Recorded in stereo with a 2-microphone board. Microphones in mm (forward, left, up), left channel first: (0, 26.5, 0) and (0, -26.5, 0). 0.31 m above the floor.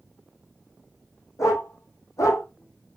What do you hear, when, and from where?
1.4 s a dog barking: 75° left (ahead or behind), 3 m; by 2.4 s 80° left, 2.5 m